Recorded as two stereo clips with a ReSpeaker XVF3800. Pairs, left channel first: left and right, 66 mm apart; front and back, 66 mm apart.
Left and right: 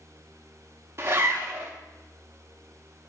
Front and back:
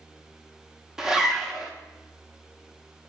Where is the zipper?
100° right, 0.7 m.